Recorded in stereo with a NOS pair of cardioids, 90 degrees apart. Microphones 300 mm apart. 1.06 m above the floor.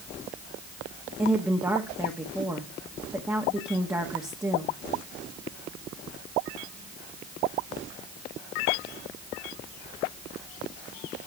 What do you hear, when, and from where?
1.2 s a woman speaking: 10° right, 1.5 m